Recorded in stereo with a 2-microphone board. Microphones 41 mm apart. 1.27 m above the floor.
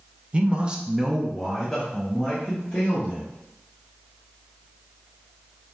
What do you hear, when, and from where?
0.3 s a man speaking: 30° right (ahead or behind), 0.5 m; by 3.3 s 15° left (ahead or behind), 1.4 m